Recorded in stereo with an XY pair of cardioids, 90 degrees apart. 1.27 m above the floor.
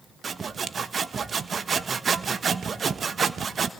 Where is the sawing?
40° right, 1.3 m.